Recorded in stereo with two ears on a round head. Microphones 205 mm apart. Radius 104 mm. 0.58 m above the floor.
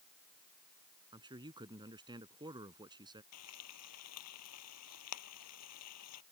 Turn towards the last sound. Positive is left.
turn(degrees=85)